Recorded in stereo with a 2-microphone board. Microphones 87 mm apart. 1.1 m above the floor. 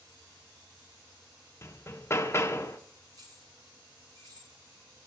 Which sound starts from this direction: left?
Hammering, at 1.6 s.